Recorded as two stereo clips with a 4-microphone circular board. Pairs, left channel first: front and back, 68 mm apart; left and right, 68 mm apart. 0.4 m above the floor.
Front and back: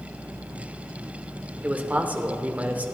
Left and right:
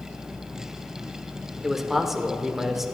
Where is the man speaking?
170° right, 0.8 m.